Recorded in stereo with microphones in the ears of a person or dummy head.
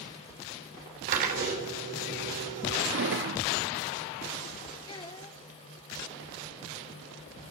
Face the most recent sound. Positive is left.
turn(degrees=25)  # may be behind; listen again after turning